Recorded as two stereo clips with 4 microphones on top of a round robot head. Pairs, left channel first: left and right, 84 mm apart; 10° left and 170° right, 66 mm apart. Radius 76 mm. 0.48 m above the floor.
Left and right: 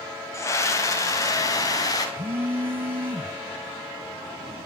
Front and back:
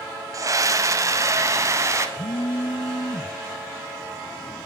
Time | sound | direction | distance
0.3 | a scream | 150° left | 3 m
2.2 | a phone buzzing | 25° right | 1.4 m